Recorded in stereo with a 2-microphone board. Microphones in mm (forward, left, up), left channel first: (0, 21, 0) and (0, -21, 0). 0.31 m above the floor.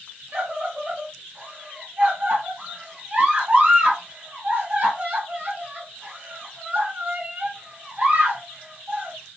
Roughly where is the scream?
Right.